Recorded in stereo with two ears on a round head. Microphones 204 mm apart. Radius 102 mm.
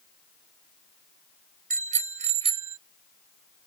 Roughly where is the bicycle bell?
Right.